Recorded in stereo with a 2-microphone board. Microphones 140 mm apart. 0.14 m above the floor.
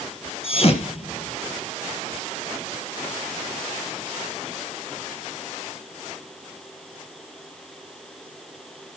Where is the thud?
45° left (ahead or behind), 1.8 m.